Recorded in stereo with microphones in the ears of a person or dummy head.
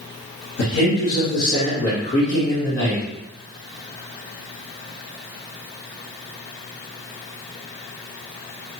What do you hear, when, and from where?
0.6 s a man speaking: 80° left, 1.4 m; by 3.0 s 10° left (ahead or behind), 1.3 m